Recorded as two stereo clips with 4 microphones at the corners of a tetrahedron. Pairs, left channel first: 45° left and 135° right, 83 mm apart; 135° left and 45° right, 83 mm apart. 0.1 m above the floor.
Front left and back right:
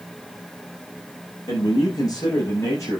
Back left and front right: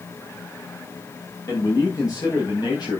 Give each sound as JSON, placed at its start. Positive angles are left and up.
{"t": 1.5, "sound": "a man speaking", "azimuth_deg": 85, "distance_m": 7.0}